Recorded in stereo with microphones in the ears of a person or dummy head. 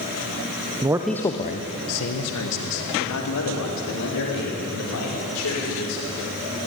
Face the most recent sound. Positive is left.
turn(degrees=80)